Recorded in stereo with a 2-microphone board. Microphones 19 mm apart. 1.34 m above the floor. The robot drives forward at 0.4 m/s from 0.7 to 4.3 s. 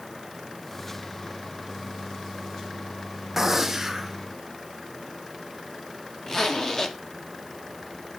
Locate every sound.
3.4 s a gunshot: 15° right (ahead or behind), 0.7 m; by 4.2 s 10° right (ahead or behind), 1.0 m
6.3 s a zipper: 30° left (ahead or behind), 0.9 m